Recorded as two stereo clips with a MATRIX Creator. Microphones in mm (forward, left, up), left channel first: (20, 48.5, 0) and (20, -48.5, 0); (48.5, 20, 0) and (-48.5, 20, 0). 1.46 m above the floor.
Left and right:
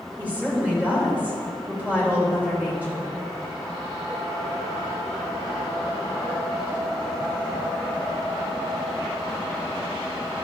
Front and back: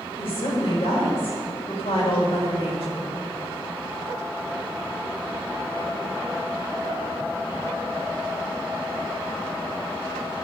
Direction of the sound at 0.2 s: 15° right.